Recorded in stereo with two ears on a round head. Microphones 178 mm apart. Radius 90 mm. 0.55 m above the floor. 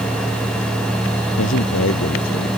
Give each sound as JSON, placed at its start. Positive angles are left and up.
{"t": 1.4, "sound": "a man speaking", "side_deg": 80}